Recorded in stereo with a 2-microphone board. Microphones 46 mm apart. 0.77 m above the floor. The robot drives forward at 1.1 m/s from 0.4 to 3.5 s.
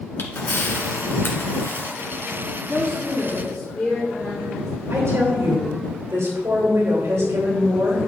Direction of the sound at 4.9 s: 80° right.